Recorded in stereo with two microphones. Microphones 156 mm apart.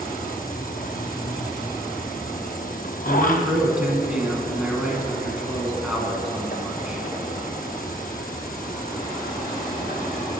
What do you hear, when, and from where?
0.0 s an insect: 65° left (ahead or behind), 0.8 m
3.0 s a man speaking: 5° right (ahead or behind), 1.4 m